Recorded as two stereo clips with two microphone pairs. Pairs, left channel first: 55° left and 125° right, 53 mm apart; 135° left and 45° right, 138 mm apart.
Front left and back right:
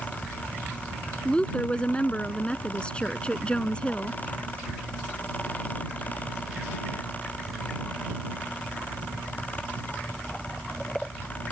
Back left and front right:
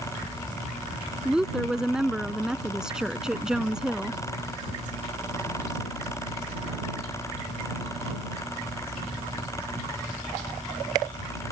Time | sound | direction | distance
1.2 | a woman speaking | 35° left | ?